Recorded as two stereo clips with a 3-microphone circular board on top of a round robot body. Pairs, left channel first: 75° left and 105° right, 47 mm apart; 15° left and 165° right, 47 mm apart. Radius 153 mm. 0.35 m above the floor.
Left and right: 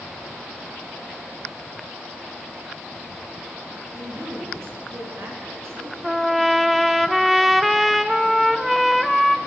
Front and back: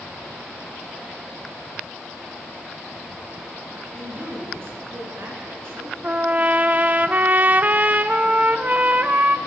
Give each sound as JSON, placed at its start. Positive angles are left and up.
{"t": 3.9, "sound": "a woman speaking", "azimuth_deg": -125, "distance_m": 7.5}
{"t": 6.0, "sound": "a trumpet", "azimuth_deg": 170, "distance_m": 1.3}